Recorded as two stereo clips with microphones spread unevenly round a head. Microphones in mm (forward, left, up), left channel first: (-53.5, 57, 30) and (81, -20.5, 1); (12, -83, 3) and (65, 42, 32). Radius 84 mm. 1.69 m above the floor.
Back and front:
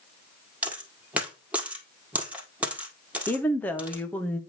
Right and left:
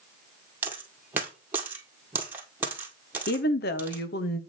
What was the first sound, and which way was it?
A dropped coin, 65° left.